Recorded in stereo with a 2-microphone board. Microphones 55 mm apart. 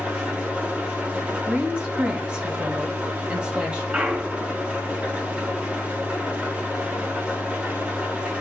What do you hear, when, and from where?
0.0 s an engine running: 25° right (ahead or behind), 2 m
1.5 s a woman speaking: 20° right (ahead or behind), 2 m
3.9 s a clunk: 25° right (ahead or behind), 1.6 m